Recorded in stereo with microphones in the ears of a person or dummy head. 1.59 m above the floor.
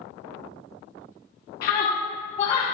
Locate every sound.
1.6 s a scream: 55° left (ahead or behind), 1.2 m; by 2.6 s 25° left (ahead or behind), 1.1 m